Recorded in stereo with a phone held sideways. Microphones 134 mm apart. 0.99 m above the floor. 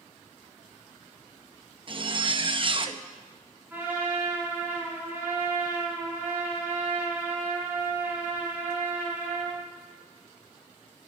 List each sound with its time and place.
1.9 s a zipper: 40° right (ahead or behind), 0.8 m
3.7 s a trumpet: 15° right (ahead or behind), 6.5 m